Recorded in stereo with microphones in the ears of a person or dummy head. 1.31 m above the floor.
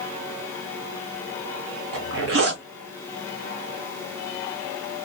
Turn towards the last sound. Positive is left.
turn(degrees=-70)  # may be behind; listen again after turning